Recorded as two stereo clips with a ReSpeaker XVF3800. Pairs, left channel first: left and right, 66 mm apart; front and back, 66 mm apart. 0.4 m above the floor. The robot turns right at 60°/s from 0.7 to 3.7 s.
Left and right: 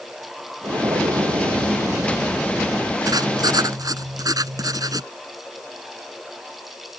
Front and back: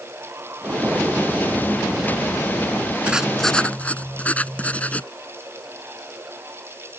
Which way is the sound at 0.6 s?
125° right.